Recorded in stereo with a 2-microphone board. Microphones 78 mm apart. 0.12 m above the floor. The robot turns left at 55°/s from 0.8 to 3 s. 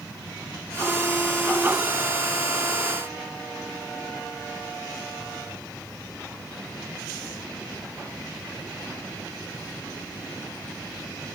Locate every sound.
Only background noise.